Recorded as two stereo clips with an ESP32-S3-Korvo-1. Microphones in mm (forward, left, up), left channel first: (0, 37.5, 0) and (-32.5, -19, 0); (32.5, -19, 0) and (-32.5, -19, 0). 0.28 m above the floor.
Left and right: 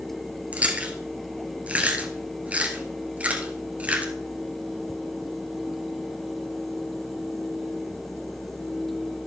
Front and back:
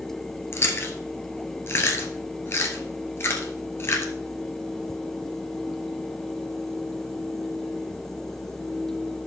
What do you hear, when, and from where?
0.5 s chewing: 50° right, 1.6 m